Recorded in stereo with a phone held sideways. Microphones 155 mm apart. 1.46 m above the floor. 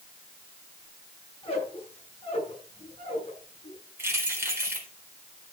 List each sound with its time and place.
1.4 s a squeak: 40° left (ahead or behind), 7 m
4.0 s keys jangling: 15° right (ahead or behind), 3.5 m